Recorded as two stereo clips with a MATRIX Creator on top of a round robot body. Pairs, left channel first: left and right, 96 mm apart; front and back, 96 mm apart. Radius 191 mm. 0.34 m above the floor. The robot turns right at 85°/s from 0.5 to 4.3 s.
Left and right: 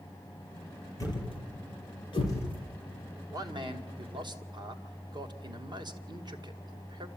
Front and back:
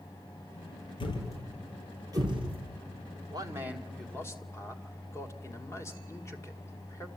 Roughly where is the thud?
Ahead left.